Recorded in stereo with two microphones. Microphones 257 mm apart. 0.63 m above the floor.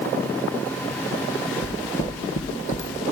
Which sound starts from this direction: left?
Footsteps, at 1.6 s.